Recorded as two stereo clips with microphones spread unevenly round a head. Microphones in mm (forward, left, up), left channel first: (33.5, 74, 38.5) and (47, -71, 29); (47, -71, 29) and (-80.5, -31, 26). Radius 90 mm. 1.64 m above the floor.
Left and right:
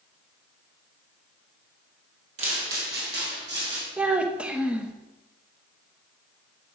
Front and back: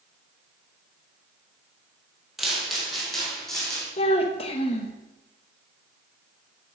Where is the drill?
I don't hear a drill.